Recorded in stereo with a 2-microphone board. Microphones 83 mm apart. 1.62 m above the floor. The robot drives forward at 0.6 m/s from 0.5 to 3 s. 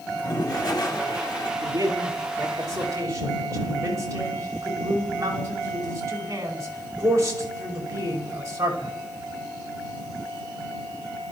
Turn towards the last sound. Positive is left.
turn(degrees=-40)  # may be behind; listen again after turning